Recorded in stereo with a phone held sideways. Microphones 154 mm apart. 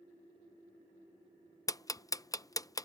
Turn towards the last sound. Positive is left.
turn(degrees=25)  # may be behind; listen again after turning